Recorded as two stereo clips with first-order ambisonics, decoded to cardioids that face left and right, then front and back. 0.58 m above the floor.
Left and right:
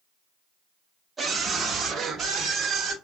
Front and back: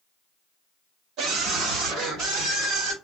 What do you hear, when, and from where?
1.2 s a scream: 160° right, 0.8 m; by 2.9 s 145° right, 1.6 m